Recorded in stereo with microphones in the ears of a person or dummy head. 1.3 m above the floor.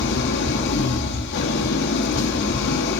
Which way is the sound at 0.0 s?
60° left (ahead or behind).